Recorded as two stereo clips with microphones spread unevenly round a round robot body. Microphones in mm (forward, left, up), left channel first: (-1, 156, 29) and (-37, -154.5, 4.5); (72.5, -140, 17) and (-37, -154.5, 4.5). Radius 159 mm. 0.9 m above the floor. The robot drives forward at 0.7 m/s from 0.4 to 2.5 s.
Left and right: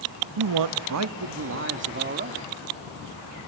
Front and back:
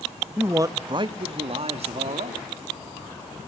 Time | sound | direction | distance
0.4 | a man speaking | 105° right | 0.8 m